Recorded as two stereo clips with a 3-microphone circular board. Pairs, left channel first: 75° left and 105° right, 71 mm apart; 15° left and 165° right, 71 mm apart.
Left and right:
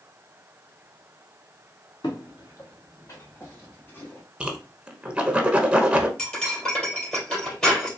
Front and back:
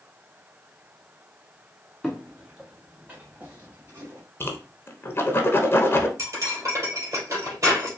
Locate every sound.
2.0 s footsteps: 105° left, 1.3 m; by 4.2 s 145° left, 2 m
4.4 s a whoosh: 30° right, 0.8 m
6.2 s cutlery clinking: 150° left, 2.5 m